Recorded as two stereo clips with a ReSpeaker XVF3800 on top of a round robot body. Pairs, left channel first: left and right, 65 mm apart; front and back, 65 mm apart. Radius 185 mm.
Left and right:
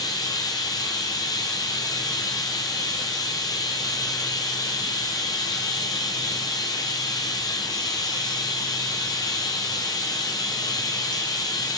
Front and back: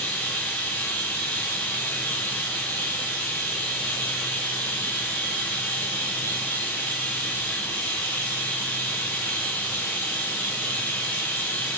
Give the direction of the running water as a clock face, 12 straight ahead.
10 o'clock.